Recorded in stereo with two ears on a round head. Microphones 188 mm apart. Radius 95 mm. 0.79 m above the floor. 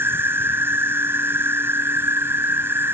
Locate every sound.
0.0 s an insect: 10° right (ahead or behind)